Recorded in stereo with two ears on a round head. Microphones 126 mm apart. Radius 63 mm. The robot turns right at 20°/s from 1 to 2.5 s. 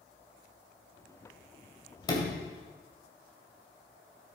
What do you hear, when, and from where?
2.0 s a sliding door: 30° left (ahead or behind), 2.5 m; by 2.5 s 25° left (ahead or behind), 2.5 m